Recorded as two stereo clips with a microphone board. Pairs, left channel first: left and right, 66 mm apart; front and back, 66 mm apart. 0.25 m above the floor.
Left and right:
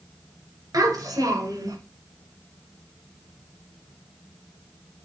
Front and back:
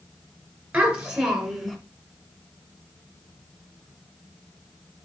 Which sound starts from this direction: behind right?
A child speaking, at 0.7 s.